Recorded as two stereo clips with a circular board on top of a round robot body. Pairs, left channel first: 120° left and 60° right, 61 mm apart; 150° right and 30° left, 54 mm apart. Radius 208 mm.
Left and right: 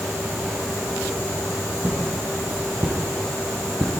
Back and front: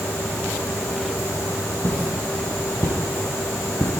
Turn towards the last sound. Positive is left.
turn(degrees=-80)